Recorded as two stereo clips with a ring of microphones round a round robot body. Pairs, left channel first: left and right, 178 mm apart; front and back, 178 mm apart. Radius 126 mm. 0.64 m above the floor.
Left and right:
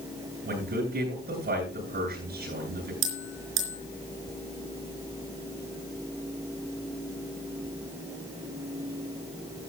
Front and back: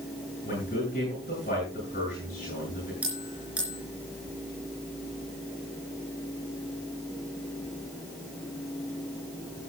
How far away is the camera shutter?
I don't hear a camera shutter.